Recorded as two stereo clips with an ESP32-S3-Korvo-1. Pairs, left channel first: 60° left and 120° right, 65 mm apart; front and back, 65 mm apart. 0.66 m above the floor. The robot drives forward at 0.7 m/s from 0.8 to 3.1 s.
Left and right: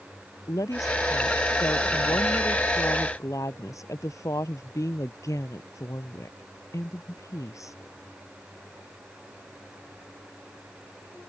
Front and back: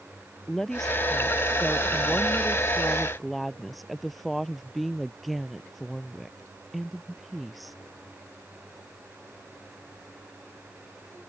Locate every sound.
0.5 s a woman speaking: 85° left; by 7.8 s 90° left